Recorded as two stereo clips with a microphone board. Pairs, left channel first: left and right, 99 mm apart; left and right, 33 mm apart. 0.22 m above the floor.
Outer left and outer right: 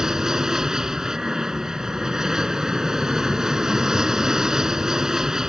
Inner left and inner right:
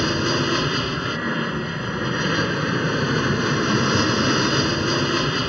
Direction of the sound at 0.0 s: 5° right (ahead or behind).